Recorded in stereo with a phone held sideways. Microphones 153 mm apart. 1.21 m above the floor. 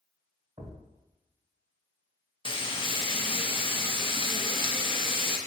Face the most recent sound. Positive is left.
turn(degrees=35)  # may be behind; listen again after turning